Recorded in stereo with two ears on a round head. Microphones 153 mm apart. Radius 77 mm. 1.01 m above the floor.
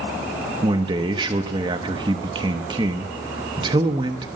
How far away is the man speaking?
About 0.8 m.